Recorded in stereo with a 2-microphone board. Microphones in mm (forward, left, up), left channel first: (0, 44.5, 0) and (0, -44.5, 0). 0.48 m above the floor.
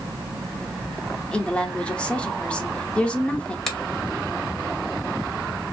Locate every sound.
1.3 s a woman speaking: 10° left (ahead or behind), 0.7 m
3.7 s a finger snap: 5° left (ahead or behind), 1.0 m